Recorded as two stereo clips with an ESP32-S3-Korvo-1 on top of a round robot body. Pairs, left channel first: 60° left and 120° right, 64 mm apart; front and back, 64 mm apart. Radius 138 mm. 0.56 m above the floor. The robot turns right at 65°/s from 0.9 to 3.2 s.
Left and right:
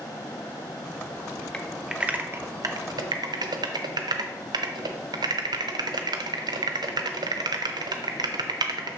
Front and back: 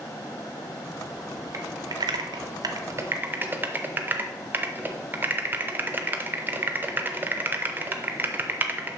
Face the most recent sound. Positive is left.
turn(degrees=-120)